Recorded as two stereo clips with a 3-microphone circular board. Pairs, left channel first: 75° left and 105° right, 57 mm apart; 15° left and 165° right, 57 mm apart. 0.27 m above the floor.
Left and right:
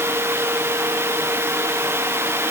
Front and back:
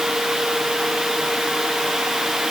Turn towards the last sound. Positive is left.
No sound to turn to.